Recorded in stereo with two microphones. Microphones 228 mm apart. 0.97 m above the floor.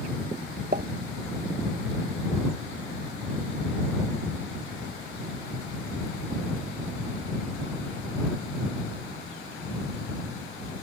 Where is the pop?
45° right (ahead or behind).